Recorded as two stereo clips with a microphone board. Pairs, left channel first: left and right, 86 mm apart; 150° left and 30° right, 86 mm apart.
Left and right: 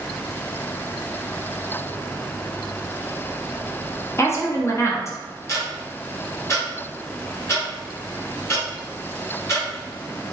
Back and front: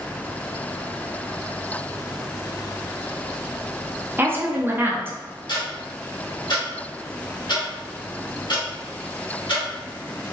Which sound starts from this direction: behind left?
Ticking, at 5.5 s.